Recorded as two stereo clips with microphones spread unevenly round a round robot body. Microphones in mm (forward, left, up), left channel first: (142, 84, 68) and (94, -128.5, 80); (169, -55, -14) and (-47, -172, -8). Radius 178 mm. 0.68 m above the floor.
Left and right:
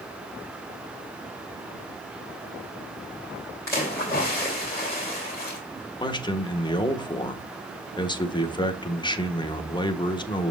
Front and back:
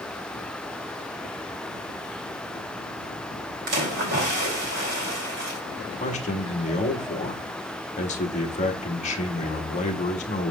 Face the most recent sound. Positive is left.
turn(degrees=40)